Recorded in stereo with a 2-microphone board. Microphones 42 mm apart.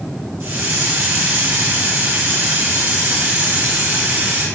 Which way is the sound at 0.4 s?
65° right (ahead or behind).